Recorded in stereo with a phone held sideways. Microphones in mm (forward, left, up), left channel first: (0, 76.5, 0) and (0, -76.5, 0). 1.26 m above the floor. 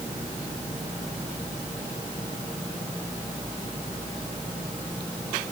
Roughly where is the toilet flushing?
I don't hear a toilet flushing.